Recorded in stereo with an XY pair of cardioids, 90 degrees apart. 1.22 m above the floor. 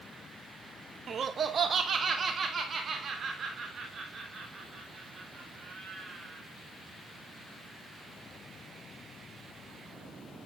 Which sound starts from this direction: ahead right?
Laughter, at 1.1 s.